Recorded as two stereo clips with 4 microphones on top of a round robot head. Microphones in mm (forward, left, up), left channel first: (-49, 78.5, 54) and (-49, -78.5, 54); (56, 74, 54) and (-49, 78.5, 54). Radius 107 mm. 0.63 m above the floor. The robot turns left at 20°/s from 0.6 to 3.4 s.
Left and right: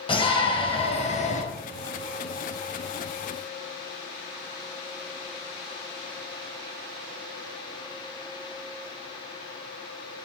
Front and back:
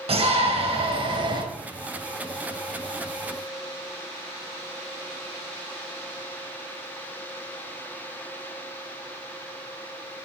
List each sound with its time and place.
0.1 s a shout: 150° left, 3.5 m; by 1.4 s 135° left, 3.5 m